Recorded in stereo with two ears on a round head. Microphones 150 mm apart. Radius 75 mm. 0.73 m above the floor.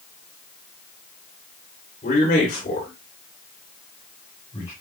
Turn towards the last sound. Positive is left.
turn(degrees=25)  # may be behind; listen again after turning